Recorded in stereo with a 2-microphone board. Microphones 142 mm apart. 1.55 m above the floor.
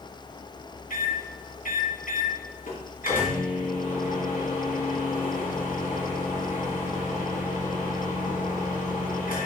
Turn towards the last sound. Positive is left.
turn(degrees=75)  # may be behind; listen again after turning